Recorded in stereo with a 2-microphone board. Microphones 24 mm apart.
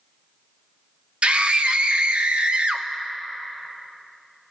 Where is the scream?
55° right (ahead or behind), 0.7 m.